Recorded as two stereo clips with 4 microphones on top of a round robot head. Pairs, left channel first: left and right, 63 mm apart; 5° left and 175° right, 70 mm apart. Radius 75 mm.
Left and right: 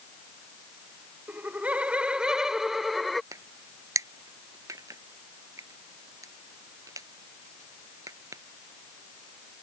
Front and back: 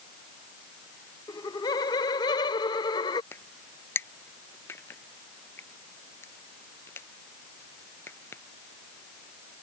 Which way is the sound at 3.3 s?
55° right.